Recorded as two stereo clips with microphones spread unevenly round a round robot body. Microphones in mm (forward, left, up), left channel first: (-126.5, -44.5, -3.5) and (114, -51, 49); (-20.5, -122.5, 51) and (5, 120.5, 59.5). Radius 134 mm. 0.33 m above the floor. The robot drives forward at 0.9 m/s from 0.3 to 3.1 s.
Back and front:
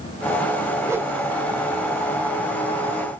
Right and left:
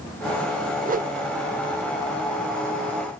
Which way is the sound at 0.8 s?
85° left.